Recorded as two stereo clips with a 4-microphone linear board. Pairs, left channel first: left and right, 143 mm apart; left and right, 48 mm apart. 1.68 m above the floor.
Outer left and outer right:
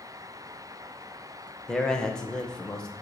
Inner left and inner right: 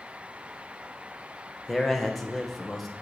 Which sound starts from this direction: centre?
A man speaking, at 1.7 s.